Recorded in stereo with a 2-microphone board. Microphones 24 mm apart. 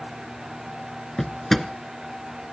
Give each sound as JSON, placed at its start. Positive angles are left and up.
{"t": 1.2, "sound": "a drawer", "side_deg": 15, "distance_m": 0.9}